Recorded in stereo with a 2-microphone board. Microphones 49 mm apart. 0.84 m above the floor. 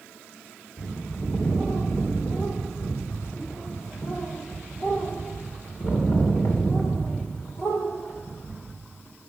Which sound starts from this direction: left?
A bird, at 0.8 s.